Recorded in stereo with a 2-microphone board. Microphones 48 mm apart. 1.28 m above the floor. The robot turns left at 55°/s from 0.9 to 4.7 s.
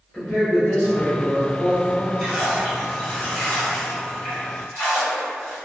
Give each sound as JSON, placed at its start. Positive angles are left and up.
{"t": 0.1, "sound": "a man speaking", "azimuth_deg": 160, "distance_m": 0.7}
{"t": 2.2, "sound": "a splash", "azimuth_deg": -145, "distance_m": 1.2}